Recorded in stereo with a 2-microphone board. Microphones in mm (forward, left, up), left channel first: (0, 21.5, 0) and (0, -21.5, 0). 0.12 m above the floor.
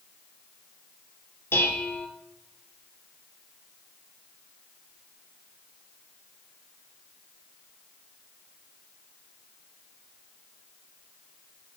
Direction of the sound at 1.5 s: 65° left (ahead or behind).